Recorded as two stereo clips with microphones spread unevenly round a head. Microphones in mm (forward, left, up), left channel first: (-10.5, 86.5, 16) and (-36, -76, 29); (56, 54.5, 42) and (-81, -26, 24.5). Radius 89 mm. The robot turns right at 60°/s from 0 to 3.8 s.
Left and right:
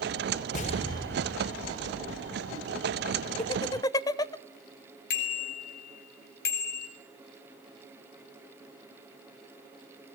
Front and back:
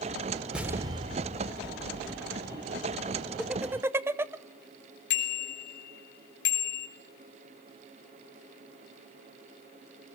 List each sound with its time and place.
0.5 s an explosion: 125° left, 2.5 m; by 2.5 s 120° right, 2.5 m
3.4 s laughter: 115° left, 0.6 m; by 4.3 s 140° left, 0.6 m
5.1 s a bicycle bell: 45° left, 3.5 m